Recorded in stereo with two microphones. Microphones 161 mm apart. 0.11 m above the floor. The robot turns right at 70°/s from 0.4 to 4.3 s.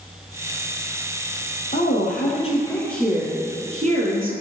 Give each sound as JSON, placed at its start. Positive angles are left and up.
{"t": 1.7, "sound": "a woman speaking", "azimuth_deg": 85, "distance_m": 3.0}